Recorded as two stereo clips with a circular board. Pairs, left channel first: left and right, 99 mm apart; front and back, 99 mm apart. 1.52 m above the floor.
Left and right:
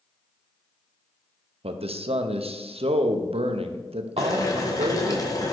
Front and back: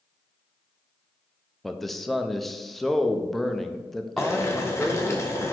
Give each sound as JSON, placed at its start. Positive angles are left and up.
{"t": 1.6, "sound": "a man speaking", "azimuth_deg": -90, "distance_m": 0.6}
{"t": 4.2, "sound": "boiling", "azimuth_deg": 50, "distance_m": 1.0}